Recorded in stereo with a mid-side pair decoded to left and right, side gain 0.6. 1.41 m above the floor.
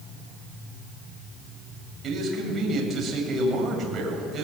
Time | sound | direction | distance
2.0 | a man speaking | 35° right | 8 m